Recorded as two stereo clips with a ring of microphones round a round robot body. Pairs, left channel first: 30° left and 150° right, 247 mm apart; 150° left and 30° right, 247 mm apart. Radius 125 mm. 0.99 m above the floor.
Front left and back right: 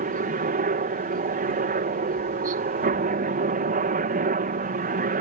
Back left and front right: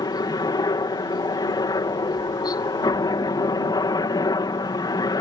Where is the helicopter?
150° right.